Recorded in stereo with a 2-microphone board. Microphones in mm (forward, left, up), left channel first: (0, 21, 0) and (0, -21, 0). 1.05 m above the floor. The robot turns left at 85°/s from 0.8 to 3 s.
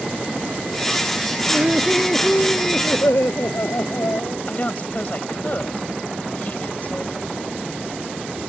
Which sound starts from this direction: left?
A woman speaking, at 4.5 s.